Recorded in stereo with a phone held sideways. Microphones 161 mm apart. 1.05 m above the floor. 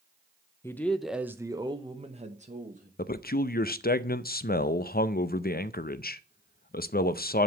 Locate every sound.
0.6 s a man speaking: 15° left (ahead or behind), 0.8 m; by 2.9 s 55° right (ahead or behind), 1.3 m
3.0 s a man speaking: 65° left (ahead or behind), 0.6 m